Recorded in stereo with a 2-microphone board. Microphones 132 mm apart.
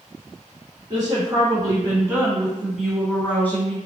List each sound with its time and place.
0.9 s a woman speaking: 35° right (ahead or behind), 1.6 m; by 3.8 s 20° left (ahead or behind), 1.2 m